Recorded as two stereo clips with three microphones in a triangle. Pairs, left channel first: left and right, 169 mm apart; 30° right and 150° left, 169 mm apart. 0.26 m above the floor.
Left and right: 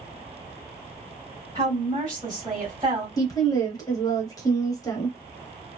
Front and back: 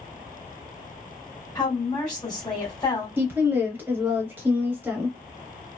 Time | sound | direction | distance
1.6 | a woman speaking | 60° right | 1.6 m
3.2 | a woman speaking | 95° left | 0.9 m